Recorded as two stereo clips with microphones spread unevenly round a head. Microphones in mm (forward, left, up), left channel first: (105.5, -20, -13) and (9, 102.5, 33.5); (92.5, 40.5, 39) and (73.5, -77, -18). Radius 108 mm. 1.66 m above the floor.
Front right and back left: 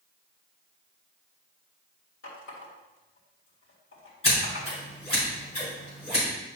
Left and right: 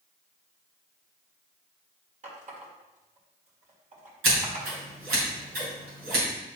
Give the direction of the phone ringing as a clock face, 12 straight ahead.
I don't hear a phone ringing.